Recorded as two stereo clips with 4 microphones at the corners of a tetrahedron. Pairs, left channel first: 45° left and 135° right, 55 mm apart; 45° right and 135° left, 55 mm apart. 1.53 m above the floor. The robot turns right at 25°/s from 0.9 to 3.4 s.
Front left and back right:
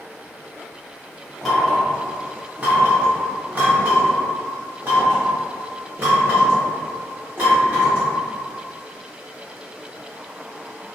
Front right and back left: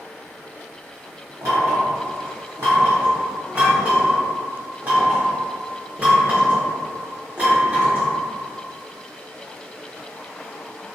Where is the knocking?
135° left, 1.0 m; by 8.1 s 175° right, 1.0 m.